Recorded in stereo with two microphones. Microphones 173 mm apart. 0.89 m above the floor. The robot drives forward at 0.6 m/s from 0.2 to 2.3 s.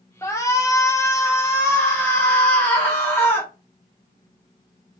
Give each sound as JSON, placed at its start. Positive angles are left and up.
{"t": 0.2, "sound": "a shout", "side_deg": 15, "distance_m": 0.8}